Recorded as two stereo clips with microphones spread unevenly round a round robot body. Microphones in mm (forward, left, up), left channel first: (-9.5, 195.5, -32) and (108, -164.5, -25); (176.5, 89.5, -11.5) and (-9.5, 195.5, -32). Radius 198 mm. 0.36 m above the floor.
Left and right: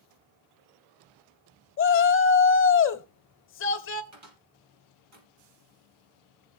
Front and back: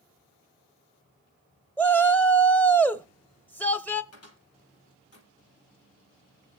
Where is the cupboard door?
20° right, 4 m.